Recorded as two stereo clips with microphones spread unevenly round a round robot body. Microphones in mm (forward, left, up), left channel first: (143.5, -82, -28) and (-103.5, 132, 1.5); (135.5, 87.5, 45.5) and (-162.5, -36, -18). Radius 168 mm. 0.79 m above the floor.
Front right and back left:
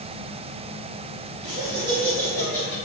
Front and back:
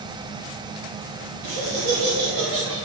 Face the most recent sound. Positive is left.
turn(degrees=-150)